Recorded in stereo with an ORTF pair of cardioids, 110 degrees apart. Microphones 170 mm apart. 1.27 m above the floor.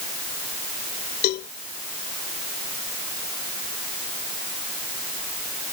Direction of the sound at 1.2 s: 65° left.